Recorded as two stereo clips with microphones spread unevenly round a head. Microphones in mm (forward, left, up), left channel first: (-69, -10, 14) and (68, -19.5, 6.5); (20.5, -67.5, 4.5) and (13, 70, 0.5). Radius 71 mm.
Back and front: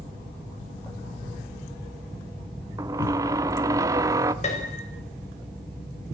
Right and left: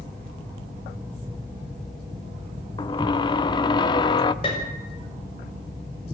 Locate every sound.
2.8 s a squeak: 60° right, 0.9 m
4.4 s a piano: 145° right, 6.5 m